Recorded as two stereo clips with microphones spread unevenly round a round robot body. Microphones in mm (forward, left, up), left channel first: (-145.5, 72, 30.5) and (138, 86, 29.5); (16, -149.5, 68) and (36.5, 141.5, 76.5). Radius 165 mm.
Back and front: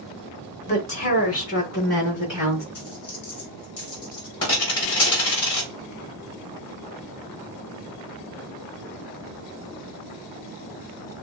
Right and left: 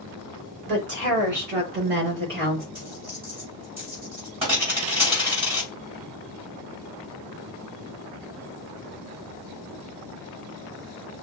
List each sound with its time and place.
0.7 s a woman speaking: 140° left, 3 m; by 2.6 s 145° left, 4.5 m
2.8 s a dropped coin: 160° left, 3.5 m